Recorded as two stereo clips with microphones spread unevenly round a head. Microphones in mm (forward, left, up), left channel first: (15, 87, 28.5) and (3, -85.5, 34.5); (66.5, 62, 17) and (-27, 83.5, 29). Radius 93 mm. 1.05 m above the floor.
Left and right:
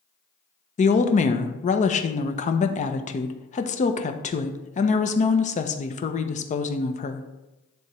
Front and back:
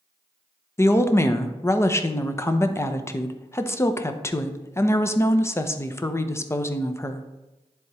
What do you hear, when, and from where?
0.8 s a woman speaking: 45° left, 0.7 m